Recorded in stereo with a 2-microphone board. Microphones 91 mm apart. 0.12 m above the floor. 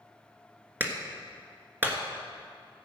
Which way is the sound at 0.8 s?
20° right (ahead or behind).